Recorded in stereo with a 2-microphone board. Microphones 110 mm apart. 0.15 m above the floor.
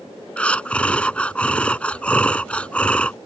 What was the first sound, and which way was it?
Breathing, 10° left (ahead or behind).